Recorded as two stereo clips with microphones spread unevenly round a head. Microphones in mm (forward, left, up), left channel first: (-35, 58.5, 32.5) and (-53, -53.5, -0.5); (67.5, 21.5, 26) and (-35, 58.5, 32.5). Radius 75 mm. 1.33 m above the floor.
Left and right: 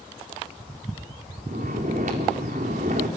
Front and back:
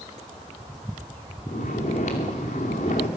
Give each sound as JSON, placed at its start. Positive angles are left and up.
{"t": 1.5, "sound": "snoring", "azimuth_deg": -60, "distance_m": 2.5}